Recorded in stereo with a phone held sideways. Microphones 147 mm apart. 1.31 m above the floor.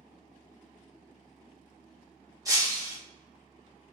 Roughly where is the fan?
Right.